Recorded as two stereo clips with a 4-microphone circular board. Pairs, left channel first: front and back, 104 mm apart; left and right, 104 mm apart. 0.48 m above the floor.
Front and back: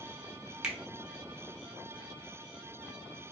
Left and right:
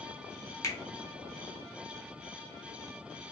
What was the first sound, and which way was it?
A finger snap, 105° left.